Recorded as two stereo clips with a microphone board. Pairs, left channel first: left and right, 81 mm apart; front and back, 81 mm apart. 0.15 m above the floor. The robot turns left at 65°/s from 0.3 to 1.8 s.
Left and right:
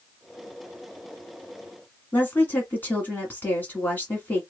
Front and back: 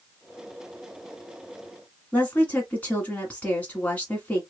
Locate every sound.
2.1 s a woman speaking: 50° left, 1.6 m